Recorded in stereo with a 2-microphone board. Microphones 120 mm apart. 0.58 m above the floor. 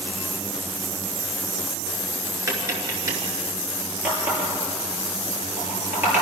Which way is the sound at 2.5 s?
30° right (ahead or behind).